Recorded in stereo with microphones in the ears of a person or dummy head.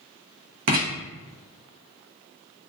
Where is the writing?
55° right (ahead or behind), 0.7 m.